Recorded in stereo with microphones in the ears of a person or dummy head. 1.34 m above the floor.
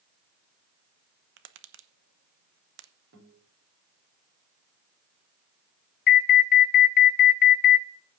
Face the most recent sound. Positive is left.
turn(degrees=55)  # may be behind; listen again after turning